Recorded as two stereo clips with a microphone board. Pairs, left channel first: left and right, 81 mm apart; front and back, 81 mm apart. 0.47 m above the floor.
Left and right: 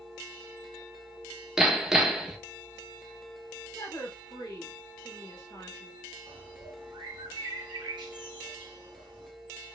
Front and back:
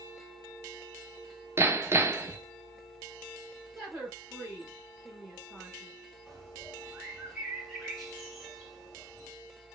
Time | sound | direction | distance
1.6 | hammering | 170° right | 0.5 m
3.8 | a woman speaking | 110° left | 2.5 m
6.3 | a bird | 95° right | 1.3 m